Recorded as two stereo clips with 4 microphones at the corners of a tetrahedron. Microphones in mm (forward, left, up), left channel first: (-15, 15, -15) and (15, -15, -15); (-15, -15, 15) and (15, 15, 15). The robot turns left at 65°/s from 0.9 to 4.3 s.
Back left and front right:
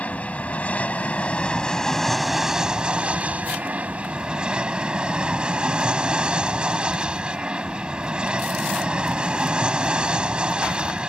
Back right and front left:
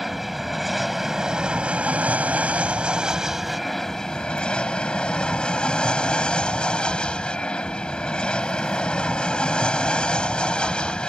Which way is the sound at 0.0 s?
130° left.